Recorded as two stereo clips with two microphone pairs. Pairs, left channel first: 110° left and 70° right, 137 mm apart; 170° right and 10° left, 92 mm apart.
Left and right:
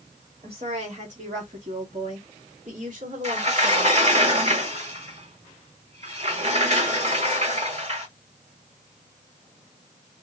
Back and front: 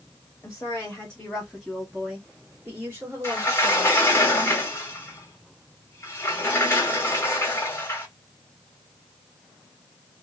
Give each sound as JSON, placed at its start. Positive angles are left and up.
{"t": 0.4, "sound": "a woman speaking", "azimuth_deg": -105, "distance_m": 1.3}
{"t": 3.2, "sound": "a sliding door", "azimuth_deg": -105, "distance_m": 1.3}